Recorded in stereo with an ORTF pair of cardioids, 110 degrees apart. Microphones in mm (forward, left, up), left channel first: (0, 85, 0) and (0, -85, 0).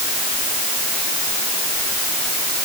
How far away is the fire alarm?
No fire alarm in this recording.